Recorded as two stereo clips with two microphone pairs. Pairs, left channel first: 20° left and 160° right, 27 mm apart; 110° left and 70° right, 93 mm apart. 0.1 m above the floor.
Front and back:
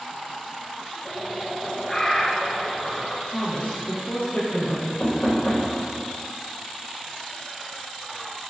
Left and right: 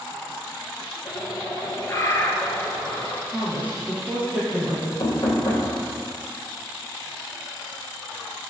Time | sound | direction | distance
1.1 | a bird | 80° left | 1.2 m
3.3 | a woman speaking | straight ahead | 3 m
5.0 | knocking | 70° left | 3 m